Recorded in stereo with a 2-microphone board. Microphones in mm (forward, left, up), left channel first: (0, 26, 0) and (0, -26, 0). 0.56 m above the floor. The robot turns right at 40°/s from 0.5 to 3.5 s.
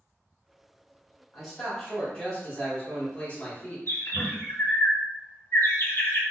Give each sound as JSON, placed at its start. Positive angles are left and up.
{"t": 1.3, "sound": "a man speaking", "azimuth_deg": 0, "distance_m": 1.2}
{"t": 3.9, "sound": "a bird", "side_deg": 50, "distance_m": 1.4}